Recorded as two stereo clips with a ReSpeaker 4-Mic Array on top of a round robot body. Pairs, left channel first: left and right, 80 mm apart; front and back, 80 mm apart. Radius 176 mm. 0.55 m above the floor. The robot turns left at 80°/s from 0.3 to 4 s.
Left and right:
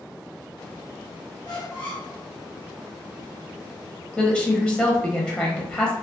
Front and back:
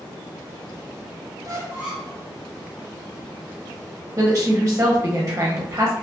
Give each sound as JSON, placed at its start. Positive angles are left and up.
{"t": 1.4, "sound": "a squeak", "azimuth_deg": 135, "distance_m": 0.8}
{"t": 4.2, "sound": "a woman speaking", "azimuth_deg": 155, "distance_m": 0.9}